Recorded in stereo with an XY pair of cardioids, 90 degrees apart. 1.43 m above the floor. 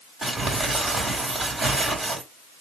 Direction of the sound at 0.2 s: 35° right.